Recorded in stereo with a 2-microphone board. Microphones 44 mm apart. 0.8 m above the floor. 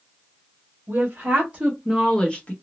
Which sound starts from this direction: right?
A woman speaking, at 0.9 s.